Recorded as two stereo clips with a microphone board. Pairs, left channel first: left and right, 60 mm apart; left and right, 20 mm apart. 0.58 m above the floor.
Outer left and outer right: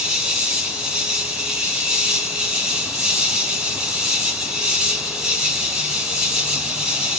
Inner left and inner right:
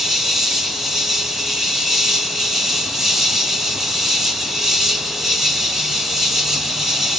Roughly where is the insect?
Centre.